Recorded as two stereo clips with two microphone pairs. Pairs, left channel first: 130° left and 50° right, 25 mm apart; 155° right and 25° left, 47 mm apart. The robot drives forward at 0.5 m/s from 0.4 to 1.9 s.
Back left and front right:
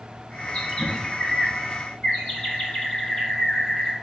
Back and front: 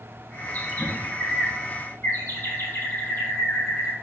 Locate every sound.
0.5 s a bird: 165° left, 1.1 m; by 3.9 s 170° left, 1.6 m